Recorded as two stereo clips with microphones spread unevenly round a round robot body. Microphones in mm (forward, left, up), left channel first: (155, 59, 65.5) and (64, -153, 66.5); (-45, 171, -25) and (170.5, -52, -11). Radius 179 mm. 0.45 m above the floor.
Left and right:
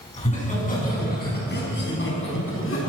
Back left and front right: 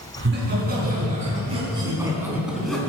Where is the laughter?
5° left, 5.5 m; by 2.9 s 50° left, 4.5 m.